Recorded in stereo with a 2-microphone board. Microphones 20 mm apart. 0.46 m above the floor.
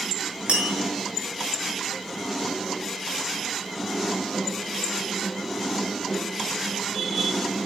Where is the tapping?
60° right (ahead or behind), 3.5 m.